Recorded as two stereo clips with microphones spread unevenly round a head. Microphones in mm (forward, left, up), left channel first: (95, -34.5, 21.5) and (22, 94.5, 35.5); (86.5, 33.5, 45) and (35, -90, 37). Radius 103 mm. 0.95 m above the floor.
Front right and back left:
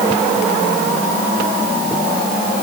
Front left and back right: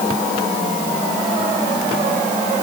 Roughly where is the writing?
No writing in this recording.